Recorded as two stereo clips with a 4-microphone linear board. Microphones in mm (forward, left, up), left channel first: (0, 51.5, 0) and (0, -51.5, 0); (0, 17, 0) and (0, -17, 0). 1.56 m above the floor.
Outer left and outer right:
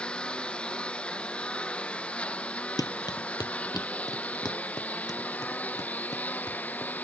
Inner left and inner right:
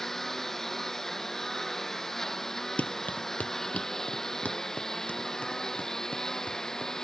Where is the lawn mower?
10° left (ahead or behind); by 7.0 s 15° left (ahead or behind).